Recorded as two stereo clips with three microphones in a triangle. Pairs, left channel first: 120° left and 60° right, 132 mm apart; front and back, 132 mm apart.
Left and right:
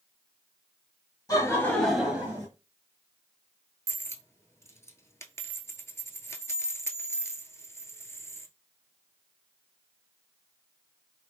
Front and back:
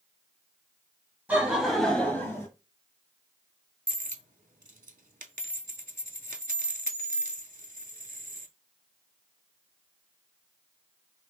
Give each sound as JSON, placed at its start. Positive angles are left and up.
{"t": 1.3, "sound": "laughter", "azimuth_deg": 120, "distance_m": 1.1}
{"t": 3.9, "sound": "a dropped coin", "azimuth_deg": -170, "distance_m": 0.5}